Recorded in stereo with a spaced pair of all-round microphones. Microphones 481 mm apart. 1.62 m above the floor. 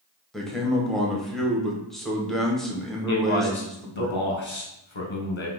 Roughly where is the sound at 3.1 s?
Left.